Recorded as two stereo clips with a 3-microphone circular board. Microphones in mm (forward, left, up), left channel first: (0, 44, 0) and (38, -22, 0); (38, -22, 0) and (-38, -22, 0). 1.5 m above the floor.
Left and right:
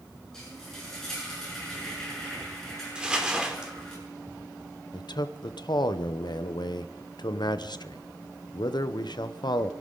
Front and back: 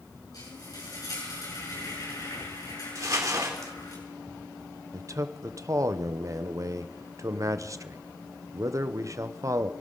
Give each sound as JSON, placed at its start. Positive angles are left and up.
{"t": 0.3, "sound": "frying", "azimuth_deg": 35, "distance_m": 7.5}
{"t": 3.0, "sound": "crumpling", "azimuth_deg": -135, "distance_m": 2.0}
{"t": 4.9, "sound": "a man speaking", "azimuth_deg": 135, "distance_m": 0.7}